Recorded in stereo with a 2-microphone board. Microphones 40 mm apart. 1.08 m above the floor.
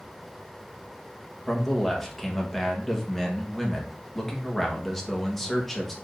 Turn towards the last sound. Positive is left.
turn(degrees=5)  # may be behind; listen again after turning